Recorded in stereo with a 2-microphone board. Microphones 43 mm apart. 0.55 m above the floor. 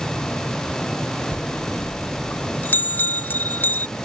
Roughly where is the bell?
Left.